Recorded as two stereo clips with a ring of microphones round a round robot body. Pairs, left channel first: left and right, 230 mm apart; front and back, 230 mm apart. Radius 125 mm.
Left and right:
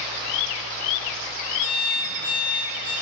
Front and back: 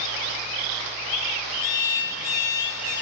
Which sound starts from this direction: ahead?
An alarm clock, at 1.6 s.